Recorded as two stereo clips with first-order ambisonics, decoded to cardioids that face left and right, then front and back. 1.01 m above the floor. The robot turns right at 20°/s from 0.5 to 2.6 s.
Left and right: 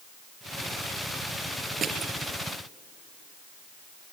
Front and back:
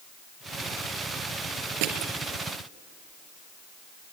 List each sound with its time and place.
1.8 s crushing: 160° right, 4 m; by 2.1 s 155° right, 4 m